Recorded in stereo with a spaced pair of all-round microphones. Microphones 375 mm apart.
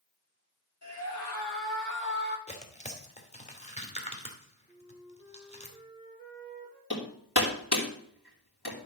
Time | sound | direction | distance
0.8 | a scream | 40° left (ahead or behind) | 4.5 m
2.5 | tearing paper | 15° left (ahead or behind) | 2 m
4.7 | a flute | 10° left (ahead or behind) | 5.5 m
6.9 | hammering | 80° left | 3 m